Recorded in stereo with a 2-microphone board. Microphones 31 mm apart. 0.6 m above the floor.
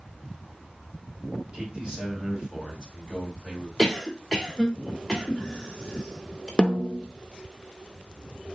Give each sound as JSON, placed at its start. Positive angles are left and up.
{"t": 1.5, "sound": "a man speaking", "side_deg": -30, "distance_m": 2.5}
{"t": 3.8, "sound": "a cough", "side_deg": 0, "distance_m": 1.8}
{"t": 6.6, "sound": "a snare drum", "side_deg": 25, "distance_m": 0.6}